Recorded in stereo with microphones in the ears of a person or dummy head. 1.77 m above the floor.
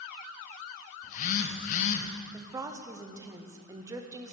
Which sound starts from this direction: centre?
A woman speaking, at 2.3 s.